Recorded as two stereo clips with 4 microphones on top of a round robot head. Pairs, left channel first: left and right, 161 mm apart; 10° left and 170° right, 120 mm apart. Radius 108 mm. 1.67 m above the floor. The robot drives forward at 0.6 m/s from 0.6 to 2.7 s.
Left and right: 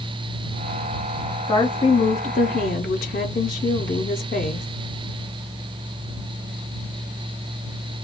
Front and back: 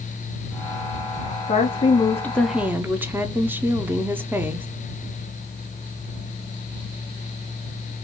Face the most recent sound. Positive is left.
turn(degrees=120)